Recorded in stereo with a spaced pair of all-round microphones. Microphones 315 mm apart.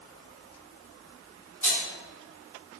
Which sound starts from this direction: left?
A rattle, at 1.6 s.